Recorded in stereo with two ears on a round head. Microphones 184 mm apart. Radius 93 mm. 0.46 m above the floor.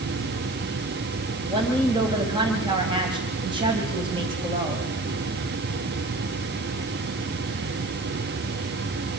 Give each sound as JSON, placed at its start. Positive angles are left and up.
{"t": 1.5, "sound": "a woman speaking", "side_deg": -25, "distance_m": 3.0}